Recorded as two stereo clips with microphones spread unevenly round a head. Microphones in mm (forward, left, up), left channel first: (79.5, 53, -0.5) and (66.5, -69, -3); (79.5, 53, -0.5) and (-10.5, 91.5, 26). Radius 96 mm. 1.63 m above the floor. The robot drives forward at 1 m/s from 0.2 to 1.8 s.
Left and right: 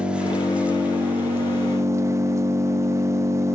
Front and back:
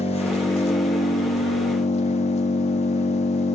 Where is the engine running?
15° right, 3 m; by 3.5 s 30° right, 1.5 m.